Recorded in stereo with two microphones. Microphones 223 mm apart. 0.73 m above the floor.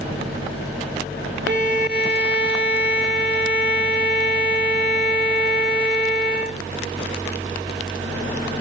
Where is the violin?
50° right (ahead or behind), 0.8 m.